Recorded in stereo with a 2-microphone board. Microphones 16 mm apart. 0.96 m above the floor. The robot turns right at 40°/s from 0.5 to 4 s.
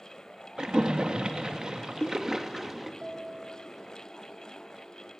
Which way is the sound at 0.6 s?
65° right (ahead or behind).